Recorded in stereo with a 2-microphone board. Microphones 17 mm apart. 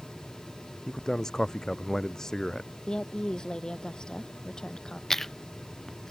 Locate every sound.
0.9 s a man speaking: 30° left (ahead or behind)
2.9 s a woman speaking: 45° left (ahead or behind)
5.1 s chewing: 25° left (ahead or behind)